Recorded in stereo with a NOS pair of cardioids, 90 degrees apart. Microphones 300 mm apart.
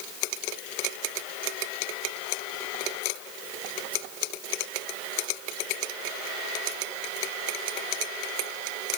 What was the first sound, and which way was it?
Only background noise.